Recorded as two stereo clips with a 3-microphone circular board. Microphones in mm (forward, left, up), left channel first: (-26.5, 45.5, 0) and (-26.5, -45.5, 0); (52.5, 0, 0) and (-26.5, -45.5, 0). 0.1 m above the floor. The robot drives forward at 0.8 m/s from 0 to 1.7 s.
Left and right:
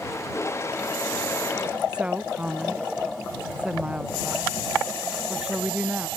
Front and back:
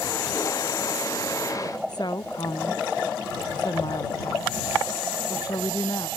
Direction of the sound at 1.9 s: 10° right.